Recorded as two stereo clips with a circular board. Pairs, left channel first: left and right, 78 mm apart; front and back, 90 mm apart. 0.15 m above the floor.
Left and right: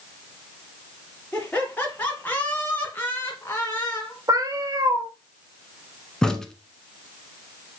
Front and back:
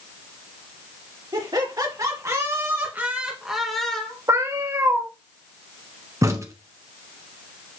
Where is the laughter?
160° left, 2.5 m; by 4.2 s 65° left, 1.5 m.